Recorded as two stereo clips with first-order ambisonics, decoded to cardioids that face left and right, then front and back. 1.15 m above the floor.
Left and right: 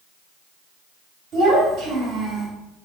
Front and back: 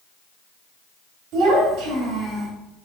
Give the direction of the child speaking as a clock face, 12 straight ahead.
5 o'clock.